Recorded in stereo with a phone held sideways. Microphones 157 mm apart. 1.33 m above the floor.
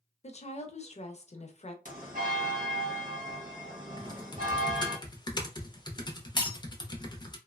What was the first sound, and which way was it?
A woman speaking, 45° left (ahead or behind).